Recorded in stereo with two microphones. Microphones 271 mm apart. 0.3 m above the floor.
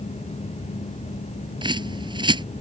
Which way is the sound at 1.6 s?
15° right (ahead or behind).